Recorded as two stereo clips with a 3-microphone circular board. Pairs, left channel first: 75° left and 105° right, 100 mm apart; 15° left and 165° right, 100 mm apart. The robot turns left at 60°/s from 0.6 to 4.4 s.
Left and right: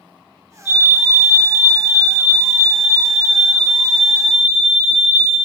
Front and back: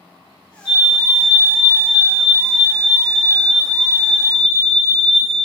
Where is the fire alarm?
130° right, 1.8 m; by 5.3 s 5° left, 1.8 m.